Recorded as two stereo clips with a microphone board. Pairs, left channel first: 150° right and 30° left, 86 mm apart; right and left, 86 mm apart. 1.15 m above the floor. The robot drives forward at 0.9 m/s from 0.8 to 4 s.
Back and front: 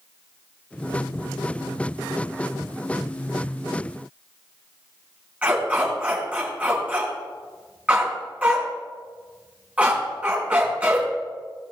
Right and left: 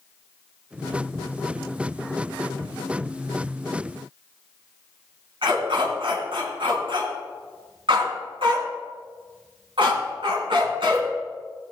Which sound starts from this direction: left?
A dog barking, at 5.4 s.